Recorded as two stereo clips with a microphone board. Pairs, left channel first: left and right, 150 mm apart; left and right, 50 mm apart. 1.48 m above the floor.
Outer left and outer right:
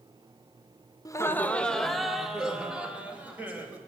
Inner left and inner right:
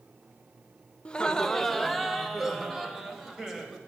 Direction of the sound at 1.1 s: 25° left (ahead or behind).